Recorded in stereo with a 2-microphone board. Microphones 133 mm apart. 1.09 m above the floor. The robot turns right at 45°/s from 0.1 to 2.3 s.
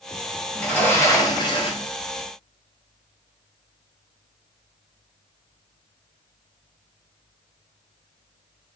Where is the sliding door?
5° left, 0.6 m; by 1.9 s 65° left, 0.6 m.